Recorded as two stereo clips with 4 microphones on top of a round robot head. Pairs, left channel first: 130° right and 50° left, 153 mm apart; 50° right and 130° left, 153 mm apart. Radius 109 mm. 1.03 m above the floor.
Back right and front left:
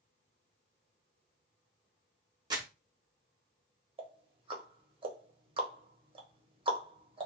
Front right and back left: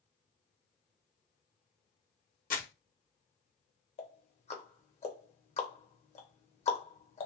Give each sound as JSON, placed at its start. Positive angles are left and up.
{"t": 2.5, "sound": "crumpling", "azimuth_deg": -15, "distance_m": 1.1}
{"t": 4.0, "sound": "ticking", "azimuth_deg": -5, "distance_m": 0.9}